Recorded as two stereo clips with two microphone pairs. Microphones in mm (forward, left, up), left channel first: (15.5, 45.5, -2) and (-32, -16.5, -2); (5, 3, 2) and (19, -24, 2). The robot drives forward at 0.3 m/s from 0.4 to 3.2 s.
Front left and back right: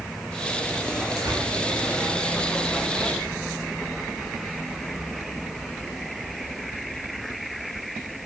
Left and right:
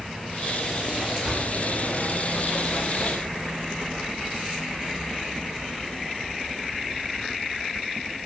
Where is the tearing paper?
120° right, 1.1 m; by 1.4 s 125° right, 1.1 m.